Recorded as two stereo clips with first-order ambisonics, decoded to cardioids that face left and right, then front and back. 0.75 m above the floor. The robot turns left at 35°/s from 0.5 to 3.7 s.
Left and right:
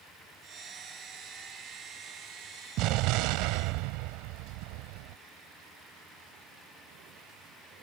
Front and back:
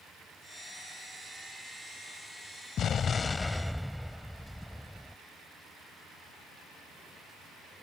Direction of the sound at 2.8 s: 55° right.